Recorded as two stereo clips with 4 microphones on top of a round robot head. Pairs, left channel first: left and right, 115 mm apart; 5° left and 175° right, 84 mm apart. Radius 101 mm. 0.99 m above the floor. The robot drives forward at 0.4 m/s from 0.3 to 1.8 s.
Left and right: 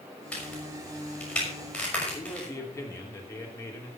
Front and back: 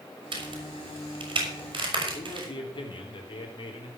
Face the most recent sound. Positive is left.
turn(degrees=25)